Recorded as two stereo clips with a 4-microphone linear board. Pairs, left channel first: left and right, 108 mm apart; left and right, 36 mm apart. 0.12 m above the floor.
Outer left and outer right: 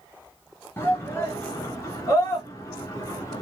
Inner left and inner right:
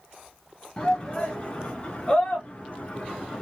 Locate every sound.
0.8 s a shout: 25° left (ahead or behind), 1.9 m; by 3.4 s 30° left (ahead or behind), 1.8 m